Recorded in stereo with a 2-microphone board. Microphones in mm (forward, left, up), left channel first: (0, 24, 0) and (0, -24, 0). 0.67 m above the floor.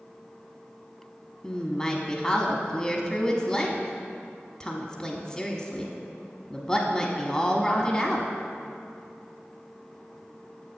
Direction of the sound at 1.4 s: 10° left (ahead or behind).